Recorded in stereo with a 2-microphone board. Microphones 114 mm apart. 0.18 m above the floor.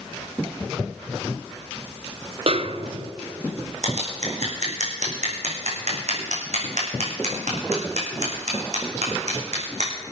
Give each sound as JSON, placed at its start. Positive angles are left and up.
{"t": 2.5, "sound": "a snare drum", "side_deg": -55, "distance_m": 0.7}
{"t": 3.8, "sound": "scissors", "side_deg": -85, "distance_m": 4.0}